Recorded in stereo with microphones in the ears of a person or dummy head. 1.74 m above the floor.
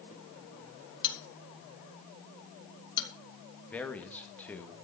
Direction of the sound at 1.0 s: 25° left (ahead or behind).